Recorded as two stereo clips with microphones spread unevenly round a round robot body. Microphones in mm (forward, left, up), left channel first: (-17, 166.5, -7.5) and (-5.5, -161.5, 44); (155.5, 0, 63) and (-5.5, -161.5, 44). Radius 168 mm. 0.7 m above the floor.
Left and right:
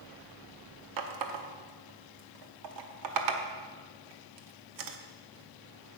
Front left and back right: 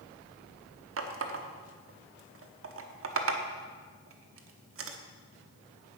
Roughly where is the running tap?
Behind right.